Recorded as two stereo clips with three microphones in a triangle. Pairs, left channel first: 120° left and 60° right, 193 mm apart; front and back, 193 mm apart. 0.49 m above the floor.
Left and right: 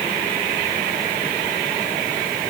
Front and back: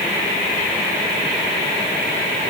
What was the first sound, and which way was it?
Only background noise.